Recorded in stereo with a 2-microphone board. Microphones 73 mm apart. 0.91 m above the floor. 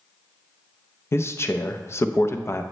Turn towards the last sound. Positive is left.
turn(degrees=35)  # may be behind; listen again after turning